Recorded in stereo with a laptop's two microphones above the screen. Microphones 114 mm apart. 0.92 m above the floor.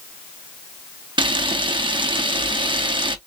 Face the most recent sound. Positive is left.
turn(degrees=-45)  # may be behind; listen again after turning